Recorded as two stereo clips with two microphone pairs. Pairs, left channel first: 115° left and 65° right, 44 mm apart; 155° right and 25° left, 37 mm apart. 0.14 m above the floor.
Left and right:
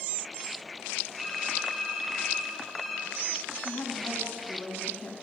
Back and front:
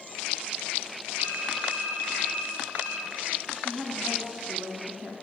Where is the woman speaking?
80° left, 1.7 m.